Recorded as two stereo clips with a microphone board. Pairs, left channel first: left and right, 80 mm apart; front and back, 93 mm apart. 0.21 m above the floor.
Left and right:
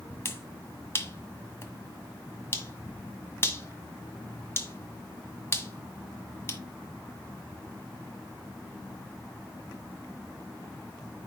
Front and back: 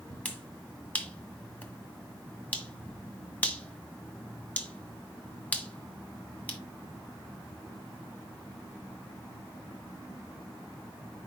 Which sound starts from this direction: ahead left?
A finger snap, at 0.2 s.